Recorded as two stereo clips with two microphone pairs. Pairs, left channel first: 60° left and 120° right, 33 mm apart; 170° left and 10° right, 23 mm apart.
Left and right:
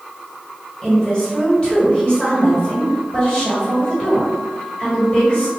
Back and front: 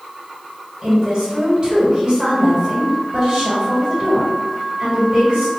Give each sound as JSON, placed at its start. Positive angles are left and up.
{"t": 0.8, "sound": "a woman speaking", "azimuth_deg": 15, "distance_m": 1.8}